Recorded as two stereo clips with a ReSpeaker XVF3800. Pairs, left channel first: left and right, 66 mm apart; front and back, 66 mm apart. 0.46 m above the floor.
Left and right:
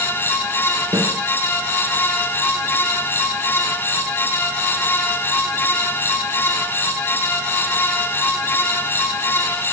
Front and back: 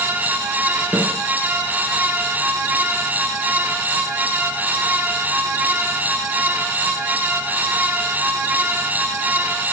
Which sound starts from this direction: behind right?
A snare drum, at 0.9 s.